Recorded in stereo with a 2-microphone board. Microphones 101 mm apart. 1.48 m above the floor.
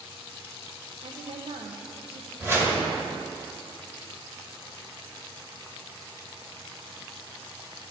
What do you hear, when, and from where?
1.0 s a woman speaking: 65° right (ahead or behind), 0.7 m
2.4 s a whoosh: 25° right (ahead or behind), 1.6 m